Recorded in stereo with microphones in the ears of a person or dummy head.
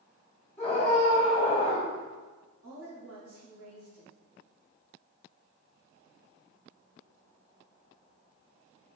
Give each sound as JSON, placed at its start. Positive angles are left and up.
{"t": 0.6, "sound": "a scream", "side_deg": 25, "distance_m": 1.4}
{"t": 2.6, "sound": "a woman speaking", "side_deg": -85, "distance_m": 1.4}